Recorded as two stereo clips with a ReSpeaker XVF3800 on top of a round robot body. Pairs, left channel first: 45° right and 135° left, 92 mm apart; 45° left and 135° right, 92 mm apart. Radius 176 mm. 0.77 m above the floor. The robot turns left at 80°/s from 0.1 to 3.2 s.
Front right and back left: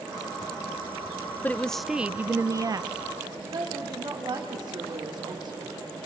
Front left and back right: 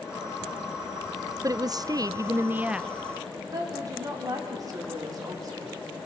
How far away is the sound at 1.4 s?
About 0.5 m.